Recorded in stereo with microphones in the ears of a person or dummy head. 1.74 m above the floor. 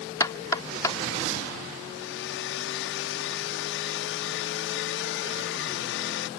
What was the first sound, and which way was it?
Knocking, 20° left (ahead or behind).